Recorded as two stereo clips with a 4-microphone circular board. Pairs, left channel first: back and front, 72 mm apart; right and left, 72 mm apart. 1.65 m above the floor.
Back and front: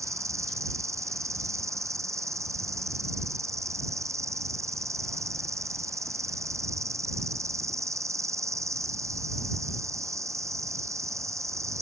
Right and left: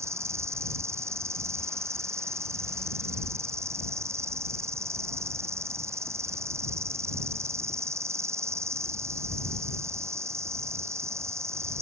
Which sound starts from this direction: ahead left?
An insect, at 0.0 s.